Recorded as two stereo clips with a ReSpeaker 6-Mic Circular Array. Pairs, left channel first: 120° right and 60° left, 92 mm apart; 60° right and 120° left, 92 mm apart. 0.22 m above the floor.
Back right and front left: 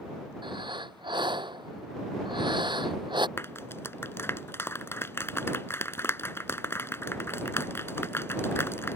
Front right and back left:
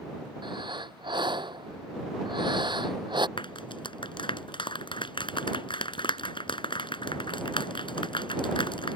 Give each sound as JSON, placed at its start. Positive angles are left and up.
{"t": 0.4, "sound": "breathing", "azimuth_deg": 90}
{"t": 3.4, "sound": "a clap", "azimuth_deg": -60}